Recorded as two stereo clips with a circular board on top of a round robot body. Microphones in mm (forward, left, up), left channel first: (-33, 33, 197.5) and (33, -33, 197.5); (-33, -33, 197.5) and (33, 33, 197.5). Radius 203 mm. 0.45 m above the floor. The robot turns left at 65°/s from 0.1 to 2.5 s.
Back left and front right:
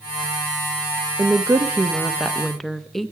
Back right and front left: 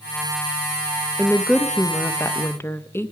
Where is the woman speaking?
55° right, 0.9 m; by 3.1 s 140° right, 0.9 m.